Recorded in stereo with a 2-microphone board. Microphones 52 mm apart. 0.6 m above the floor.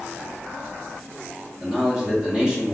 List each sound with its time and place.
1.6 s a man speaking: 20° right (ahead or behind), 1.0 m